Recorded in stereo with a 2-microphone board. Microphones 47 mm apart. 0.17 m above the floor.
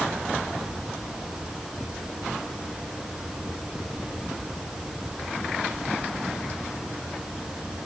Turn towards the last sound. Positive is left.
No sound to turn to.